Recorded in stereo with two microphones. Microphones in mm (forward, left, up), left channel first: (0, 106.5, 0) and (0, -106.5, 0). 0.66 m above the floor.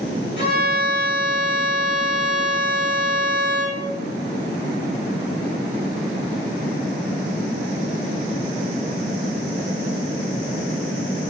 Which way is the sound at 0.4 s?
50° right (ahead or behind).